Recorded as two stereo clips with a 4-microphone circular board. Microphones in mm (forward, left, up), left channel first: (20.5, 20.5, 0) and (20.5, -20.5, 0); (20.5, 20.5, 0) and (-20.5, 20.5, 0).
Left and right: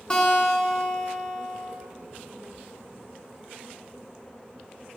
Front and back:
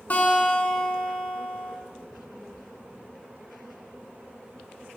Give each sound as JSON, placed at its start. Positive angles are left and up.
{"t": 0.1, "sound": "a guitar", "azimuth_deg": 30, "distance_m": 2.0}